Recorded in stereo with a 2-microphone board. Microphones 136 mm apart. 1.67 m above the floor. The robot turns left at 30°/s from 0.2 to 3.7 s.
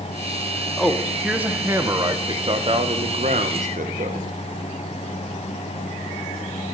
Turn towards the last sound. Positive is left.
turn(degrees=-80)